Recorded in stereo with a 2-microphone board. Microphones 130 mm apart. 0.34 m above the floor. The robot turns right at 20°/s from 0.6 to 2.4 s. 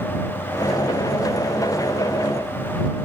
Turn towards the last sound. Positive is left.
No sound to turn to.